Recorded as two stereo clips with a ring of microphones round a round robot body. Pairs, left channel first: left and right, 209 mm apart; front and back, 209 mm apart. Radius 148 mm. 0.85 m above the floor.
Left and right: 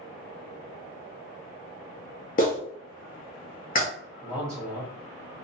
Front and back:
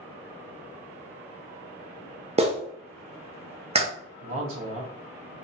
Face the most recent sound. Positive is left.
turn(degrees=-170)